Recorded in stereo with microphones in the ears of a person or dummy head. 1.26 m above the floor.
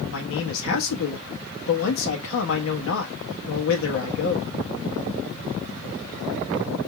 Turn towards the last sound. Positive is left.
turn(degrees=75)  # may be behind; listen again after turning